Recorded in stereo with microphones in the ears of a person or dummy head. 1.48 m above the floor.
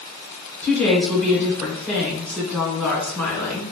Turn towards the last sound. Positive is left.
turn(degrees=5)  # may be behind; listen again after turning